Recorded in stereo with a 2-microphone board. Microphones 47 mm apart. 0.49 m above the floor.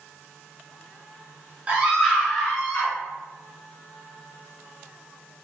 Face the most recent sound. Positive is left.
turn(degrees=20)  # may be behind; listen again after turning